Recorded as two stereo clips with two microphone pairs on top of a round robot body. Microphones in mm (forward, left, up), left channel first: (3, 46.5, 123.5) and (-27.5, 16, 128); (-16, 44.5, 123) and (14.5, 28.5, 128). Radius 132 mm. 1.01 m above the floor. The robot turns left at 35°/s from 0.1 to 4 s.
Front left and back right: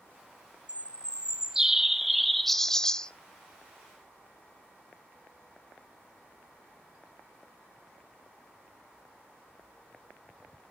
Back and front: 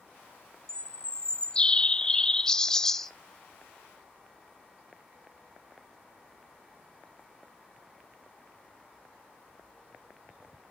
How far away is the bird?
About 0.9 m.